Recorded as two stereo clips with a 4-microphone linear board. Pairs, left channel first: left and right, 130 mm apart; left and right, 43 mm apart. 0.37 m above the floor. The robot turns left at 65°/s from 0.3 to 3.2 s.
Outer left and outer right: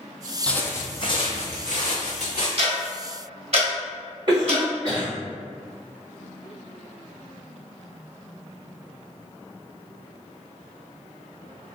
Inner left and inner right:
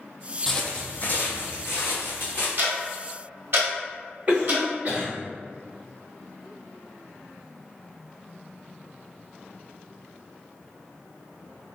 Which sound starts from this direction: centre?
Footsteps, at 0.5 s.